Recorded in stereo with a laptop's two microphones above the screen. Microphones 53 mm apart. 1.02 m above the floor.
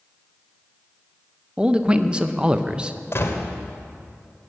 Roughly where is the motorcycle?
No motorcycle in this recording.